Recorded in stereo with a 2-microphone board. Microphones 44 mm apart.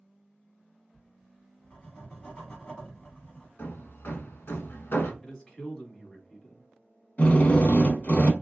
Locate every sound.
0.9 s writing: 25° left (ahead or behind), 1.4 m
3.6 s hammering: 55° left (ahead or behind), 0.6 m
5.2 s a man speaking: 20° left (ahead or behind), 1.0 m
7.2 s a drill: 35° left (ahead or behind), 0.6 m